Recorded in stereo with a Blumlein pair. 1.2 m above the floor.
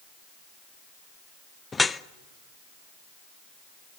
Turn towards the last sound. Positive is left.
turn(degrees=10)